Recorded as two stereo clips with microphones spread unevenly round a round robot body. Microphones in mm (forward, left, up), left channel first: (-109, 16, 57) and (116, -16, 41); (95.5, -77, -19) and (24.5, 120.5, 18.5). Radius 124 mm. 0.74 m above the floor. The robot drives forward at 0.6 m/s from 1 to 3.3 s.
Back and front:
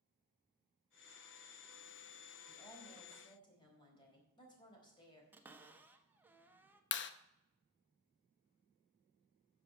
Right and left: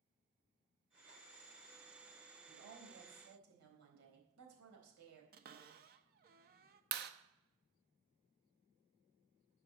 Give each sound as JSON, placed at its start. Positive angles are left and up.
{"t": 2.5, "sound": "a woman speaking", "azimuth_deg": 95, "distance_m": 4.0}
{"t": 5.3, "sound": "a cupboard door", "azimuth_deg": 70, "distance_m": 1.1}
{"t": 6.9, "sound": "a clap", "azimuth_deg": 155, "distance_m": 0.7}